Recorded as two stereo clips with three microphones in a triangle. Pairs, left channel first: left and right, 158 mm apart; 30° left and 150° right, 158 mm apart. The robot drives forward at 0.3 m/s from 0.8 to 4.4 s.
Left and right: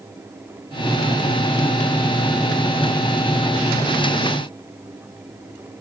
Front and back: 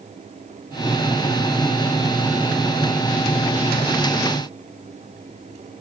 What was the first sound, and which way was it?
Only background noise.